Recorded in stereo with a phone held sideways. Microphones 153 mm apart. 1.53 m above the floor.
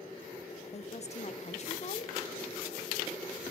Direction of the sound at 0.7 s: 45° left (ahead or behind).